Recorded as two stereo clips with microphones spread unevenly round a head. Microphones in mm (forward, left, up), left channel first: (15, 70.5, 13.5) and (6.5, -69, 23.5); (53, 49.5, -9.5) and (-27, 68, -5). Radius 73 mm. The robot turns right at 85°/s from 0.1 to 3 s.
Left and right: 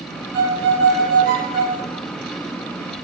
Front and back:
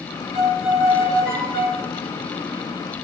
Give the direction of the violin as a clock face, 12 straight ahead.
5 o'clock.